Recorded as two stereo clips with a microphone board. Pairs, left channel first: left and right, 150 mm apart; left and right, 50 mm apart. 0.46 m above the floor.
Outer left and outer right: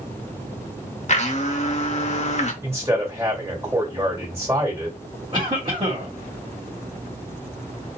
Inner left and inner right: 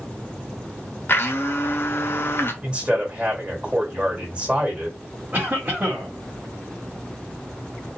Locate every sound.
1.1 s a blender: 50° left (ahead or behind), 0.7 m
2.6 s a man speaking: 20° right (ahead or behind), 1.7 m
5.3 s a cough: 35° right (ahead or behind), 1.2 m